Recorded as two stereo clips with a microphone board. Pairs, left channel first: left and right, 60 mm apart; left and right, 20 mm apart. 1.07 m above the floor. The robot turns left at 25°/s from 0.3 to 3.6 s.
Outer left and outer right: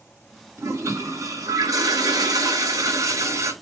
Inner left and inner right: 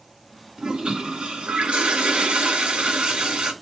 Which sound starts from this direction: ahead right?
A toilet flushing, at 0.6 s.